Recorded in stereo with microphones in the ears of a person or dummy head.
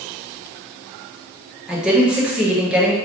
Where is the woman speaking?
5° right (ahead or behind), 1.0 m.